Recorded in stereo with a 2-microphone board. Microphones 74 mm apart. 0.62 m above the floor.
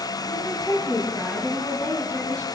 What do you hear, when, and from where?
0.3 s a woman speaking: 40° left (ahead or behind), 5.5 m; by 2.5 s 20° left (ahead or behind), 7 m